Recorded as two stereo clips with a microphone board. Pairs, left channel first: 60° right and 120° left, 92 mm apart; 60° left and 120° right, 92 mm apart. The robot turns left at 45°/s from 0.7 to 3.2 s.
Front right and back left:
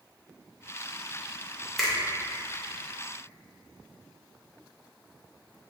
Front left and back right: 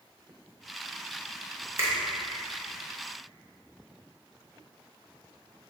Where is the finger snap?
145° right, 0.7 m; by 1.9 s 155° right, 0.7 m.